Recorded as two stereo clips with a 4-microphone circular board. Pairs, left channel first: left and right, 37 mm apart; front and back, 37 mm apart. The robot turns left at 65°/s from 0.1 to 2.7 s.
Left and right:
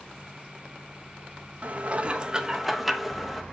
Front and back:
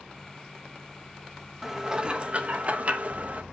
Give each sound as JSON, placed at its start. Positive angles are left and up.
{"t": 1.6, "sound": "dishes clattering", "azimuth_deg": -105, "distance_m": 1.1}